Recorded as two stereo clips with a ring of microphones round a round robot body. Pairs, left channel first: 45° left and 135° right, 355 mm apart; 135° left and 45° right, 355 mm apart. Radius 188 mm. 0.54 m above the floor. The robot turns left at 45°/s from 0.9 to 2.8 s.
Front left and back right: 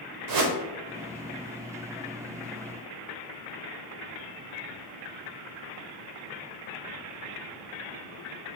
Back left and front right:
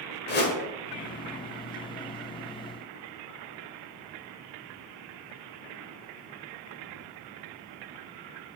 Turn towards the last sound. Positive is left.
turn(degrees=110)